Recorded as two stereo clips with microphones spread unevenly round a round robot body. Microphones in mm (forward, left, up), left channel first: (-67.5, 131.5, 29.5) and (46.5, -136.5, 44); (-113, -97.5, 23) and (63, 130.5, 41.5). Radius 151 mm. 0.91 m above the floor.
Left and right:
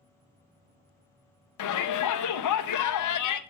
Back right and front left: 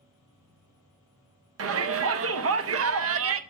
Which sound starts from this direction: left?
A shout, at 1.6 s.